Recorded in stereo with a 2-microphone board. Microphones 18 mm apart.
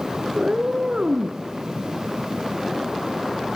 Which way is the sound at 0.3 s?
60° right (ahead or behind).